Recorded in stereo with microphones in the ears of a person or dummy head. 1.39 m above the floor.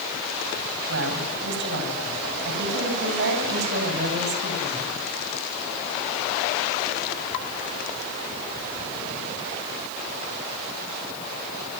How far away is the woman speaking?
About 9.5 m.